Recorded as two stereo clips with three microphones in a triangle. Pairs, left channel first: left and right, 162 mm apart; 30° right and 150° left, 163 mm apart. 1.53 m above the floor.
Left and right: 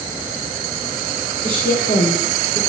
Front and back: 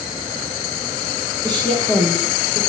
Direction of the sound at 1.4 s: 85° left.